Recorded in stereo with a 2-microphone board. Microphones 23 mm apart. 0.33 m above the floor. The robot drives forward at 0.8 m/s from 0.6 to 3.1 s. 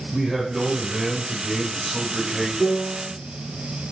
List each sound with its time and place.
0.1 s a man speaking: 10° right (ahead or behind), 1.2 m
2.6 s a piano: 50° left (ahead or behind), 2.5 m; by 3.1 s 45° left (ahead or behind), 3 m